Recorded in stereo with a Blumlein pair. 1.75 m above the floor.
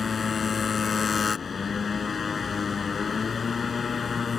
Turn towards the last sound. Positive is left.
turn(degrees=20)